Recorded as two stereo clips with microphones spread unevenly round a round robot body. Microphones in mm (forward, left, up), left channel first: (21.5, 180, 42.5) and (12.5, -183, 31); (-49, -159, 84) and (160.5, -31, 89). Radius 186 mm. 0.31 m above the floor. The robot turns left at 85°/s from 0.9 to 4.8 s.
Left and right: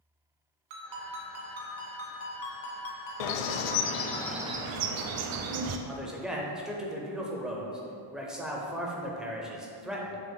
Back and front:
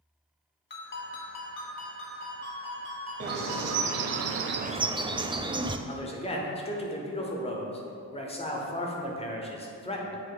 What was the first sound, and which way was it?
A ringtone, 100° right.